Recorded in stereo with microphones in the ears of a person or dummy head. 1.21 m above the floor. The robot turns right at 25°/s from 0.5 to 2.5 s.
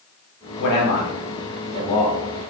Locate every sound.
0.6 s a man speaking: 60° left (ahead or behind), 0.8 m; by 2.2 s 20° left (ahead or behind), 0.8 m